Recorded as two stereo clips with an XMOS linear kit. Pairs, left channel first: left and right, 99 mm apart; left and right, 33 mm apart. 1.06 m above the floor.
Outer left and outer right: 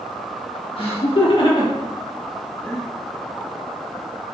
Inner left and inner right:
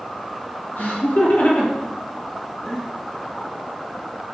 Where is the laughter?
65° left (ahead or behind), 1.6 m; by 2.9 s 5° left (ahead or behind), 1.1 m.